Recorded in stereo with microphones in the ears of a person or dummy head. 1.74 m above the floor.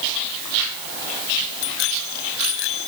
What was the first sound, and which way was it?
A bicycle bell, 80° left.